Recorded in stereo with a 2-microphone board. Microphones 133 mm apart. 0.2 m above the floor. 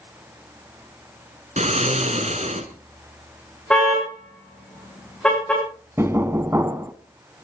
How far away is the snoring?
About 2 m.